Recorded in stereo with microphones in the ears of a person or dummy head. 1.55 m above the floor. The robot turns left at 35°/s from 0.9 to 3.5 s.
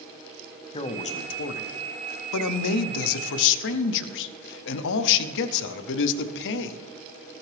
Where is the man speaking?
155° left, 0.6 m; by 6.8 s 60° left, 0.6 m.